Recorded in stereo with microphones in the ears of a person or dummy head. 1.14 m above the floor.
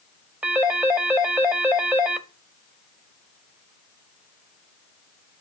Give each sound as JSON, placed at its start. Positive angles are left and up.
{"t": 0.4, "sound": "a phone ringing", "side_deg": -10, "distance_m": 0.9}